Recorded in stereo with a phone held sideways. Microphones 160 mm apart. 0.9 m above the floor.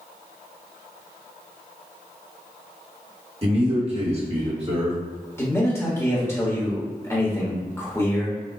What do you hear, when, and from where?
3.4 s a man speaking: 35° right (ahead or behind), 1.3 m
5.4 s a man speaking: 15° left (ahead or behind), 1.2 m